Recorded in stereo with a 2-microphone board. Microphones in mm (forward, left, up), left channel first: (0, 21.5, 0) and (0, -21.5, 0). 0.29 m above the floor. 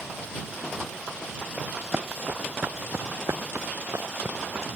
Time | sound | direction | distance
1.6 | running footsteps | 30° right (ahead or behind) | ?